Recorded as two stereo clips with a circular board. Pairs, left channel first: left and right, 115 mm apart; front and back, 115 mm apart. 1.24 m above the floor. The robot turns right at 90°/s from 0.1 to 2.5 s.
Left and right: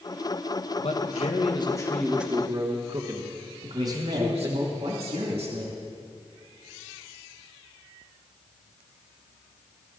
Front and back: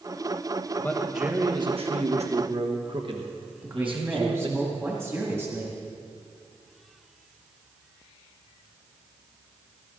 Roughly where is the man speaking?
Ahead left.